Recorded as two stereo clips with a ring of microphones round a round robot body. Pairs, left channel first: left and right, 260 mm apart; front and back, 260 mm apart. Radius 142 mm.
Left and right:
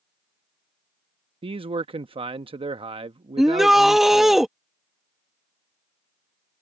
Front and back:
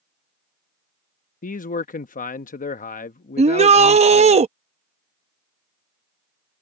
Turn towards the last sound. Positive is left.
turn(degrees=-175)